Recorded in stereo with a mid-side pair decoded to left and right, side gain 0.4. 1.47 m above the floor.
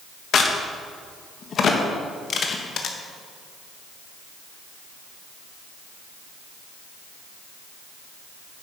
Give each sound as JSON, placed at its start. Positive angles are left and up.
{"t": 0.3, "sound": "a crack", "azimuth_deg": 60, "distance_m": 1.3}